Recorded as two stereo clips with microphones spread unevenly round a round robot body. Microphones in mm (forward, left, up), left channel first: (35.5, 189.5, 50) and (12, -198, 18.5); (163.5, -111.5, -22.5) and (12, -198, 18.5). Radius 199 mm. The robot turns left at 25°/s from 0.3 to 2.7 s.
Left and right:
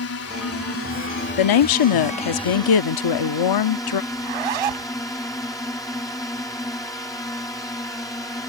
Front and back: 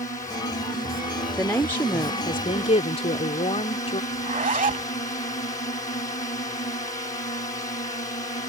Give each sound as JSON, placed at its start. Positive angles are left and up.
{"t": 0.0, "sound": "a drone", "azimuth_deg": 65}
{"t": 1.4, "sound": "a woman speaking", "azimuth_deg": 105}
{"t": 4.1, "sound": "a zipper", "azimuth_deg": -105}